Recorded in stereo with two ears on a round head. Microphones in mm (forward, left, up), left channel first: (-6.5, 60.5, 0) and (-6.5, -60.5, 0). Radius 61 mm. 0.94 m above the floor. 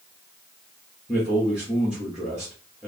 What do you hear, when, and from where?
1.1 s a man speaking: 5° right (ahead or behind), 1.6 m